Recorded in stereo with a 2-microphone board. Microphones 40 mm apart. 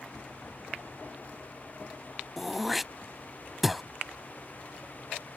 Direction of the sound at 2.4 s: 5° right (ahead or behind).